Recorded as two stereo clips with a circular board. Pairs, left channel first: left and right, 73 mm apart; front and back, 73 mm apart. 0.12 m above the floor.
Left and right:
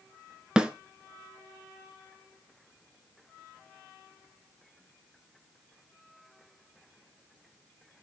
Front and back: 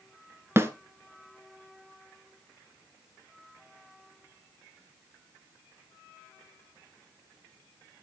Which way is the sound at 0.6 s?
160° right.